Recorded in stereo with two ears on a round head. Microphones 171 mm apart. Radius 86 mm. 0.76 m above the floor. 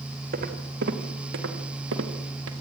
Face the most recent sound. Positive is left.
turn(degrees=-75)  # may be behind; listen again after turning